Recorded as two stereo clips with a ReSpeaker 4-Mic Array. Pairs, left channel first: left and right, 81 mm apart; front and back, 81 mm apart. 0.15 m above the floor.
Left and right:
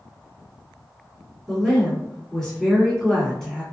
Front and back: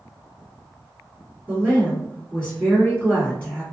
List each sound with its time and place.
1.5 s a woman speaking: 25° left, 1.6 m